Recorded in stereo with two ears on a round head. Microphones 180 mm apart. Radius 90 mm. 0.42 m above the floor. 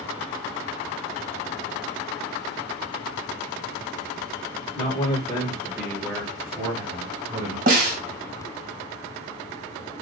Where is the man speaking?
35° left (ahead or behind), 1.2 m; by 7.6 s 30° right (ahead or behind), 1.4 m.